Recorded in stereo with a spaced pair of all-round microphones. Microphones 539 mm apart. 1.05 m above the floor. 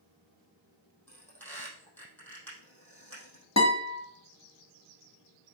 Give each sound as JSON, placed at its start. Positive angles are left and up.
{"t": 1.1, "sound": "a squeak", "side_deg": 5, "distance_m": 3.5}
{"t": 3.6, "sound": "a guitar", "side_deg": 30, "distance_m": 1.3}